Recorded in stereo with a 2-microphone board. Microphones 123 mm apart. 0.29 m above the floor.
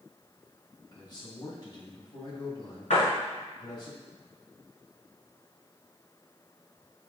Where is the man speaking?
35° left (ahead or behind), 1.8 m.